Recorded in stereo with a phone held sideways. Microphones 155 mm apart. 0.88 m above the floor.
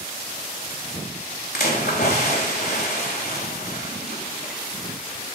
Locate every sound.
1.5 s a splash: 80° left, 1.8 m